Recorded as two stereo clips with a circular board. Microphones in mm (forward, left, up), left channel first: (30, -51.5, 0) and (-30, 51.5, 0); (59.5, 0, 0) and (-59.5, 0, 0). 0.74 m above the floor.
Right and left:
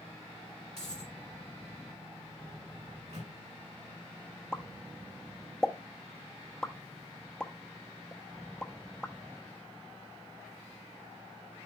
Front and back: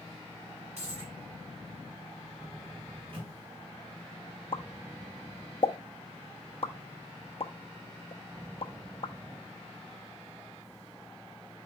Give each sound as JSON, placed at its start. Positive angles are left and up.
{"t": 0.8, "sound": "a dropped coin", "azimuth_deg": 145, "distance_m": 5.0}
{"t": 2.9, "sound": "a microwave", "azimuth_deg": 135, "distance_m": 4.5}
{"t": 4.5, "sound": "a pop", "azimuth_deg": 20, "distance_m": 0.7}